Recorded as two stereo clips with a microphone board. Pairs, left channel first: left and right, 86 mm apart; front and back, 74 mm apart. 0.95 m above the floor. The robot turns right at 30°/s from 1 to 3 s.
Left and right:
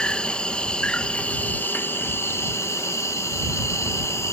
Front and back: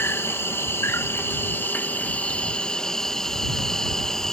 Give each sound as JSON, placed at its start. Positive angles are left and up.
{"t": 0.0, "sound": "an insect", "azimuth_deg": 20}